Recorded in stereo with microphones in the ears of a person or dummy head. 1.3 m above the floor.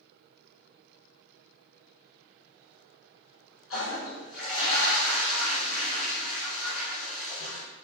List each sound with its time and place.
3.7 s a toilet flushing: 75° left (ahead or behind), 1.8 m